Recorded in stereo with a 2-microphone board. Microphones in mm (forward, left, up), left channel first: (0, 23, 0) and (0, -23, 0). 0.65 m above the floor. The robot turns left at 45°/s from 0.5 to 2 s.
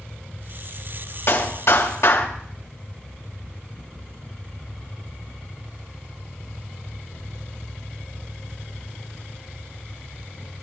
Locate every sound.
1.3 s a clap: 125° left, 2.5 m; by 2.3 s 90° left, 2.5 m